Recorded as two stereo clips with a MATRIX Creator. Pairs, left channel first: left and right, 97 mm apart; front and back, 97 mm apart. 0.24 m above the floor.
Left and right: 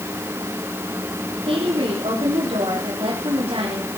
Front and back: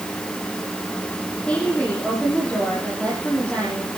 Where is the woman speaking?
80° right, 7.5 m.